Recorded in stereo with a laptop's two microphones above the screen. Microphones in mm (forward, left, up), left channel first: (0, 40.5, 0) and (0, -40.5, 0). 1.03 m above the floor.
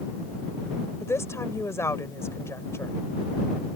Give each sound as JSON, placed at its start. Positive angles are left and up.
{"t": 1.0, "sound": "a woman speaking", "side_deg": 35}